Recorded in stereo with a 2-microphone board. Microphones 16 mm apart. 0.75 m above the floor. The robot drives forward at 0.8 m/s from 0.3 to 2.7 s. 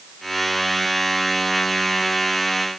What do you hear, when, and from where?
Only background noise.